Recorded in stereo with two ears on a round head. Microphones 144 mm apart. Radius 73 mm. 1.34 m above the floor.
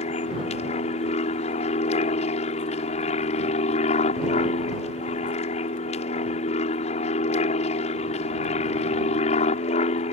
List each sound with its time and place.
0.0 s an aircraft: 45° left (ahead or behind)